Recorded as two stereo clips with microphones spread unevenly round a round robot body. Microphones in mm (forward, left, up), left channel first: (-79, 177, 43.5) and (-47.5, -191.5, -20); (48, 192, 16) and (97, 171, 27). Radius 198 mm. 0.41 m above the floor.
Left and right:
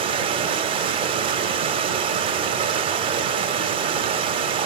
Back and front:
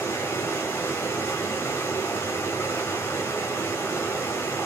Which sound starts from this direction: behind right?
Running water, at 0.0 s.